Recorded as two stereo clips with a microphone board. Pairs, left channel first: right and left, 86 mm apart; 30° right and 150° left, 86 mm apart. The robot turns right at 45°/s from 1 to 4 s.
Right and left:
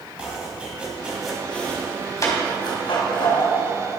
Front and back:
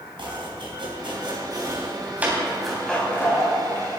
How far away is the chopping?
About 3 m.